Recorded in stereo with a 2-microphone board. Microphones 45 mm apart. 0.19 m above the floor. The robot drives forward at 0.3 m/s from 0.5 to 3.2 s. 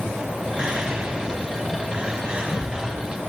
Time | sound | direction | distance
0.6 | whispering | 20° right (ahead or behind) | 1.0 m